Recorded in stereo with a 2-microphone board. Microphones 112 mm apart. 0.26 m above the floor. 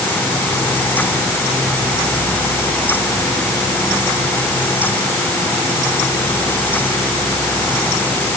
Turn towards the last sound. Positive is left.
No sound to turn to.